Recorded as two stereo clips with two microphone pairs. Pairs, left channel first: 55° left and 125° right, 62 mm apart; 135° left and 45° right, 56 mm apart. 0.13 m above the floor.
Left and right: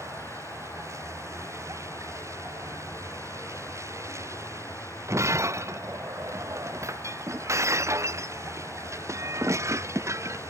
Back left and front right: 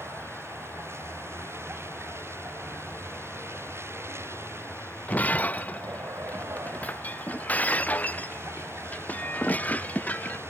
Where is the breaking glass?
165° right.